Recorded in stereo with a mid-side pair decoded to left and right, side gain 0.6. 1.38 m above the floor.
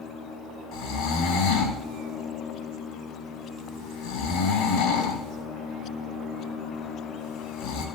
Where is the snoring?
70° left, 3.5 m.